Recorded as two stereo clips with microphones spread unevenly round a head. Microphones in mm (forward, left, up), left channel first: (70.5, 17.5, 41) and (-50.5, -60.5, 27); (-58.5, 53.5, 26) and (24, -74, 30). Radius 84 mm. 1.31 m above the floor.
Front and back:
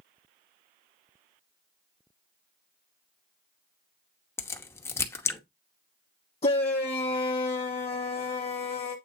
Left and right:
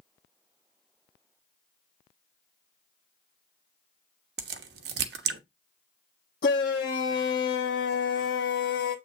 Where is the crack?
35° right, 1.0 m.